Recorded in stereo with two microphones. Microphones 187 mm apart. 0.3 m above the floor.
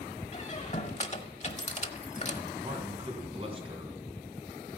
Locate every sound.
0.3 s a squeak: 40° left (ahead or behind), 0.9 m
2.6 s a man speaking: 30° right (ahead or behind), 3 m